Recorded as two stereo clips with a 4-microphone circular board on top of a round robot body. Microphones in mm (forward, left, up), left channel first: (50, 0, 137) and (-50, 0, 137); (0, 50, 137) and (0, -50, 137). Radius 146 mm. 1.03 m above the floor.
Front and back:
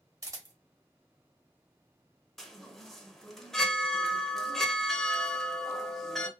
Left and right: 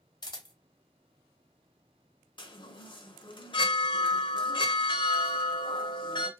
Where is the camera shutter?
130° left, 1.1 m.